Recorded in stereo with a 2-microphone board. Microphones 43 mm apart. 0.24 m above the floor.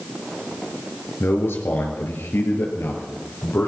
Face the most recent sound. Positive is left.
turn(degrees=75)  # may be behind; listen again after turning